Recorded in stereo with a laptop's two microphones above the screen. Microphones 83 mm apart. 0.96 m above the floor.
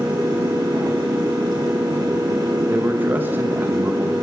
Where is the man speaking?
20° right (ahead or behind), 0.9 m.